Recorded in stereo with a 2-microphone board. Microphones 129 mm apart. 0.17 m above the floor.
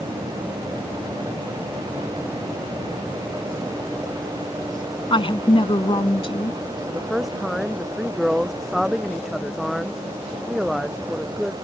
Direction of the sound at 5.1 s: 40° left (ahead or behind).